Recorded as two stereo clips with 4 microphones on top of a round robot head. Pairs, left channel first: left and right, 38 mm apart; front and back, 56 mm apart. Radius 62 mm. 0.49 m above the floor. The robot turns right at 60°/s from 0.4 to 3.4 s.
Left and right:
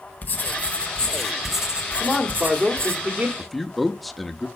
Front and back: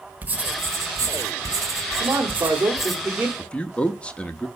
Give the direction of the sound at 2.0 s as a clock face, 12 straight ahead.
6 o'clock.